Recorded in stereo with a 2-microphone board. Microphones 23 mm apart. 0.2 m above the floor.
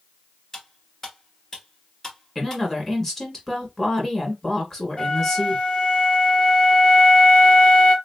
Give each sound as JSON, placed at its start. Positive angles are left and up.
{"t": 0.5, "sound": "cutlery clinking", "side_deg": 15, "distance_m": 1.7}
{"t": 2.4, "sound": "a woman speaking", "side_deg": 10, "distance_m": 1.8}
{"t": 5.0, "sound": "a flute", "side_deg": 35, "distance_m": 1.8}